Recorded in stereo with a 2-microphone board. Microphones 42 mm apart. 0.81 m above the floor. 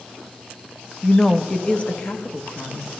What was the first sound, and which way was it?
A woman speaking, centre (ahead or behind).